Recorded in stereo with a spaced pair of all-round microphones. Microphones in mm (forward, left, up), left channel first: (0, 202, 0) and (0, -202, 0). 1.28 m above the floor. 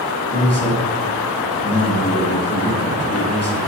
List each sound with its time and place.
0.3 s a man speaking: 35° left (ahead or behind), 1.2 m